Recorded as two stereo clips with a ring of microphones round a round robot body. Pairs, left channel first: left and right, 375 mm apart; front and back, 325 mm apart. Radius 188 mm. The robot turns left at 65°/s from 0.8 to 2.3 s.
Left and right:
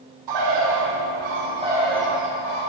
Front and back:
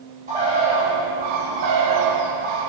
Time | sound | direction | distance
0.3 | a bird | 110° right | 0.9 m